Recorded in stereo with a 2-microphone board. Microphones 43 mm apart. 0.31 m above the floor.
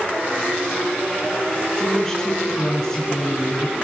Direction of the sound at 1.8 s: 15° left (ahead or behind).